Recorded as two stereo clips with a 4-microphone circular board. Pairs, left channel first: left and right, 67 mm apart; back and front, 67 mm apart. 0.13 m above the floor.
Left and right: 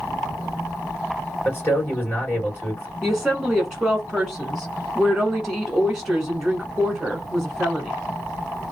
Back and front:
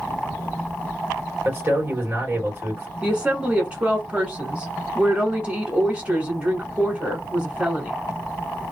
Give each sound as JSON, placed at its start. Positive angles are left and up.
{"t": 1.4, "sound": "a man speaking", "azimuth_deg": 45, "distance_m": 2.5}
{"t": 3.0, "sound": "a woman speaking", "azimuth_deg": -15, "distance_m": 1.0}